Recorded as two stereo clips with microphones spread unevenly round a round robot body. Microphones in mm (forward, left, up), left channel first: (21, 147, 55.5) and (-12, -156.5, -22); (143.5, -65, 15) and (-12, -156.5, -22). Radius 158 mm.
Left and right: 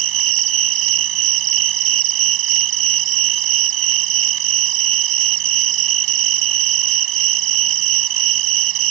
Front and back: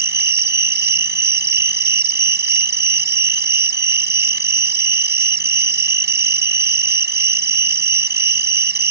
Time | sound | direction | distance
0.0 | an insect | 120° right | ?